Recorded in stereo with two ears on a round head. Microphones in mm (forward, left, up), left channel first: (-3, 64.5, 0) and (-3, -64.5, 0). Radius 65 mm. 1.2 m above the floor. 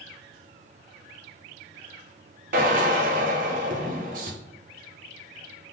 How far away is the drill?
About 0.9 m.